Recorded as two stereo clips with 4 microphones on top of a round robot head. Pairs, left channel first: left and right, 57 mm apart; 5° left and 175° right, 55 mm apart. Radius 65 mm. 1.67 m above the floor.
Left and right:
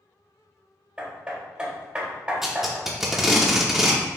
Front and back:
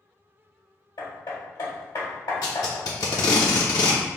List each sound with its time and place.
1.0 s hammering: 20° right, 1.3 m
2.4 s tape being pulled: 10° right, 0.7 m